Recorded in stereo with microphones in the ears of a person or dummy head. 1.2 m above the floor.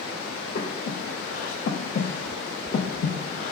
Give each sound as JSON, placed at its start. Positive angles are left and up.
{"t": 0.6, "sound": "breathing", "side_deg": 45, "distance_m": 0.5}